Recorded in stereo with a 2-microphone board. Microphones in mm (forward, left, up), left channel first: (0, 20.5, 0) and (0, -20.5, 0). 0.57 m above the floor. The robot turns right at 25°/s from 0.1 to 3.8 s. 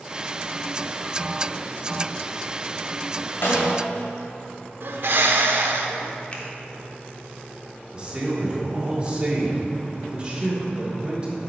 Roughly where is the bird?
Right.